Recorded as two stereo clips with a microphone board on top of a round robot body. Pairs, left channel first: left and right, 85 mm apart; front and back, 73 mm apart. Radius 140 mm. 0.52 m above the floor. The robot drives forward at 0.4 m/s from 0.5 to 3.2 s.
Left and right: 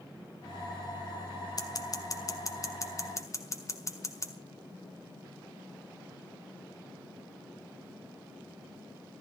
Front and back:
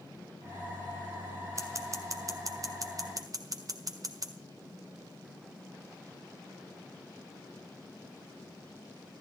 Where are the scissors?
130° left, 2 m; by 4.3 s 145° left, 2.5 m.